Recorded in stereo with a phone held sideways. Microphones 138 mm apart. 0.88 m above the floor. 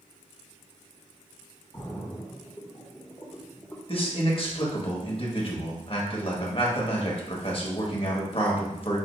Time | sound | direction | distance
1.7 | a splash | 20° left (ahead or behind) | 0.8 m
3.9 | a man speaking | 40° left (ahead or behind) | 1.1 m